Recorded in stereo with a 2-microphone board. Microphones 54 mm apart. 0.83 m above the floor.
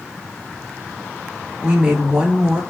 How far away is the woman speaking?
About 1.5 m.